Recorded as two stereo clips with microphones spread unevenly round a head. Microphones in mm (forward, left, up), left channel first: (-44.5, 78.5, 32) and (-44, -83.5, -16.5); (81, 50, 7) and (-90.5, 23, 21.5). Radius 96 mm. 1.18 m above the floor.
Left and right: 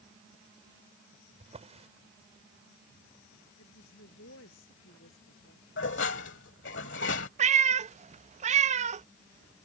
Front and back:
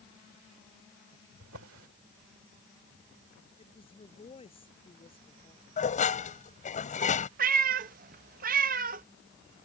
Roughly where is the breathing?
No breathing in this recording.